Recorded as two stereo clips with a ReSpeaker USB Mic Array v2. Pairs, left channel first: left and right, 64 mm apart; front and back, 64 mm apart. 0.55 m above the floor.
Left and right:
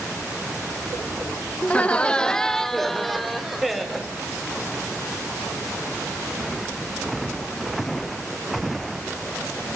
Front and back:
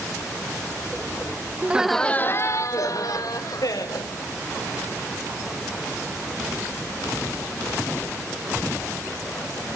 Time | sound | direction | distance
1.6 | laughter | 145° left | 0.7 m